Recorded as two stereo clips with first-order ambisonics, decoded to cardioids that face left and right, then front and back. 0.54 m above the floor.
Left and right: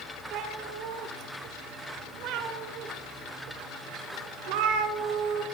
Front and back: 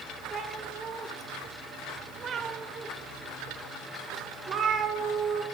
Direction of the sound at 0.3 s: 115° right.